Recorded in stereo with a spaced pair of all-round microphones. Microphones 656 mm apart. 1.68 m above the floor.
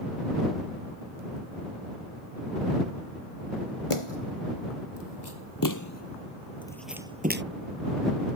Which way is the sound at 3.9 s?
50° left (ahead or behind).